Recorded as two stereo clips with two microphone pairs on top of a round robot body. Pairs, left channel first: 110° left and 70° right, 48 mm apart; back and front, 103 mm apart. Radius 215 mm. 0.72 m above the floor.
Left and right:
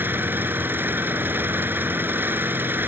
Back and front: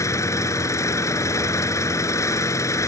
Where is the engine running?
120° right.